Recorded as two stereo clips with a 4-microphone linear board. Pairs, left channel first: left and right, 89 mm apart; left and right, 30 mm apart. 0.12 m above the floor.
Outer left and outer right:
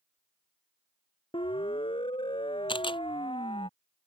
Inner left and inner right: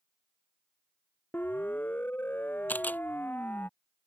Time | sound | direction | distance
1.3 | a siren | 75° left (ahead or behind) | ?
2.7 | a camera shutter | 75° left (ahead or behind) | ?